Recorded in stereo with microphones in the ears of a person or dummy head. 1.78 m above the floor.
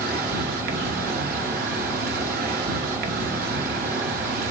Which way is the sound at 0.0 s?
55° right (ahead or behind).